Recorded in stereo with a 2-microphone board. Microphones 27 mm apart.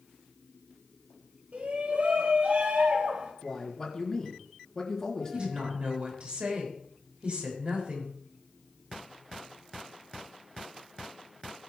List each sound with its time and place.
1.5 s a shout: 65° right (ahead or behind), 3 m
3.4 s a man speaking: 20° left (ahead or behind), 4 m
5.3 s a woman speaking: 40° right (ahead or behind), 5.5 m